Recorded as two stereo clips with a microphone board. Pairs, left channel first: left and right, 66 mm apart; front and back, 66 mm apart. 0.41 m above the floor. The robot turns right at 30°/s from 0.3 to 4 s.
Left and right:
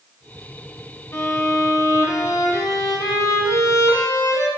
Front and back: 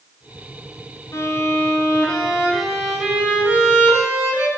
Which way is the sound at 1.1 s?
45° left.